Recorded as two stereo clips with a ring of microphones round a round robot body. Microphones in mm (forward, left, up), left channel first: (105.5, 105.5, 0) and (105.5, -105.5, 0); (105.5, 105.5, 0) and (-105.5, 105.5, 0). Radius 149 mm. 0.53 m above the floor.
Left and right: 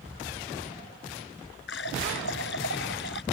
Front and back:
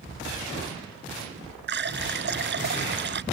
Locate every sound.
1.7 s a running tap: 145° left